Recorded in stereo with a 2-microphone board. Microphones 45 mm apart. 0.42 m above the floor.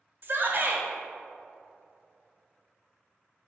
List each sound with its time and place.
0.2 s a shout: 50° right (ahead or behind), 1.2 m